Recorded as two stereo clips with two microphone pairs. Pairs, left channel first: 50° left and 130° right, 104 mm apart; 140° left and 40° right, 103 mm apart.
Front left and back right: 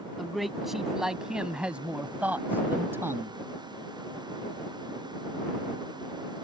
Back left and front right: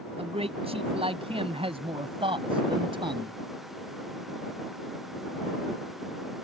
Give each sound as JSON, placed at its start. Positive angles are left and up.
{"t": 0.2, "sound": "a man speaking", "azimuth_deg": -40}